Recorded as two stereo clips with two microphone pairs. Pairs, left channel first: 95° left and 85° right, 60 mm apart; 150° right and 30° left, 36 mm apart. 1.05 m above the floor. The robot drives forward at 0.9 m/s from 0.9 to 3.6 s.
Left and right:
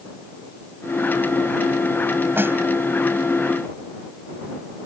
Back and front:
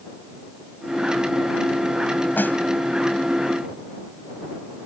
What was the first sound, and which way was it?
A snare drum, 135° right.